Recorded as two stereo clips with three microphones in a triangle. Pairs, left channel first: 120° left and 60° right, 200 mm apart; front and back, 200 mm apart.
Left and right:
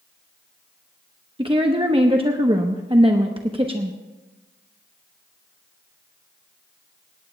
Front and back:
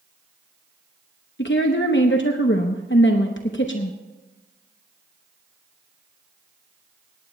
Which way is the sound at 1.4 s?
Straight ahead.